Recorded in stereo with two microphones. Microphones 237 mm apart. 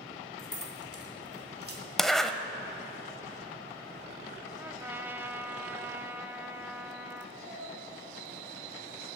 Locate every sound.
0.4 s keys jangling: 60° left (ahead or behind), 1.9 m; by 1.8 s 65° left (ahead or behind), 2 m
2.0 s a zipper: centre (ahead or behind), 0.7 m
4.6 s a trumpet: 10° right (ahead or behind), 0.6 m
7.3 s a cat meowing: 60° right (ahead or behind), 5 m